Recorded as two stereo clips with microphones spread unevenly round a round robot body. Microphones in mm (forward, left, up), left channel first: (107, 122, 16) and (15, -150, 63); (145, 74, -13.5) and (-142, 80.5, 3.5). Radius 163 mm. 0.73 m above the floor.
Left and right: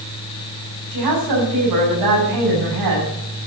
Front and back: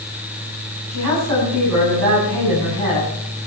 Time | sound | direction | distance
0.9 | a woman speaking | 130° right | 6.5 m